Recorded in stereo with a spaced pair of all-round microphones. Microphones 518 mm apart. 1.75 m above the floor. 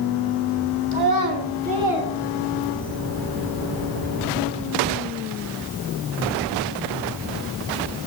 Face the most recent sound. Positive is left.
turn(degrees=25)  # may be behind; listen again after turning